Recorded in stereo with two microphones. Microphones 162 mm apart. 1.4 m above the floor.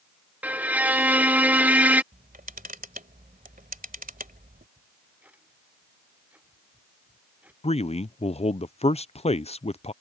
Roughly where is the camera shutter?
Right.